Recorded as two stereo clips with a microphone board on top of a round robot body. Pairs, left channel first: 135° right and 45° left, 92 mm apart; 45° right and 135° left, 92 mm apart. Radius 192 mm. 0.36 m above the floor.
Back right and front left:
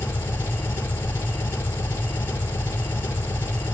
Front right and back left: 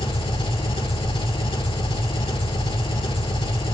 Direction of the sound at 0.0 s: 70° right.